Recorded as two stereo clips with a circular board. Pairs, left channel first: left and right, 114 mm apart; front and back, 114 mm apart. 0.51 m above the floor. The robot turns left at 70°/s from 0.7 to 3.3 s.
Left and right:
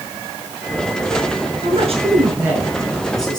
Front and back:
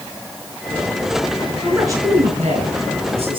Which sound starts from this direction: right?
A man speaking, at 1.6 s.